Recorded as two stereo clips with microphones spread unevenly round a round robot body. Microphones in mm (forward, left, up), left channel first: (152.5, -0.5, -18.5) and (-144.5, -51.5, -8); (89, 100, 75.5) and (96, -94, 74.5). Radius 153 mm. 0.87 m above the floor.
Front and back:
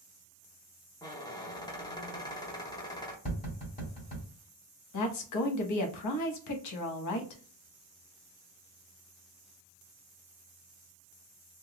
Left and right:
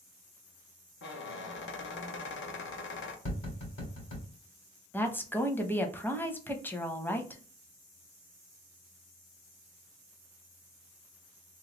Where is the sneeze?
No sneeze in this recording.